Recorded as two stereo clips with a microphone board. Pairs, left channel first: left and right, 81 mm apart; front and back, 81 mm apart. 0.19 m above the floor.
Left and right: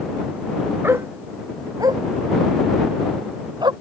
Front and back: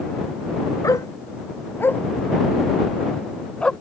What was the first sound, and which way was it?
A dog barking, 35° right.